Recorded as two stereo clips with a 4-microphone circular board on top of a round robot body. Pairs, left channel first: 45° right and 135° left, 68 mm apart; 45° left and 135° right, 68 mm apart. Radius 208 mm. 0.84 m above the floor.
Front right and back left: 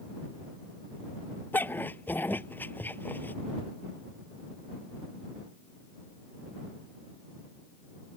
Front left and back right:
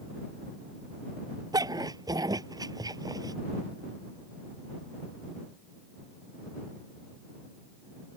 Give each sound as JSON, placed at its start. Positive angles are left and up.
{"t": 1.5, "sound": "a dog barking", "azimuth_deg": -110}